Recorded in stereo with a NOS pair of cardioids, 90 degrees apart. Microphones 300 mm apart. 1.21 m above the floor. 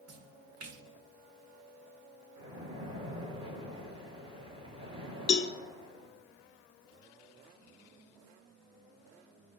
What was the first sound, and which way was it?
A splash, 50° right.